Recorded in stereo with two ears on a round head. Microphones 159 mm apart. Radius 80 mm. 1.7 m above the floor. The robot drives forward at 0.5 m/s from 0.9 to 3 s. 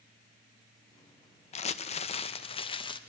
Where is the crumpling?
35° left (ahead or behind), 0.9 m; by 3.0 s 30° left (ahead or behind), 1.2 m.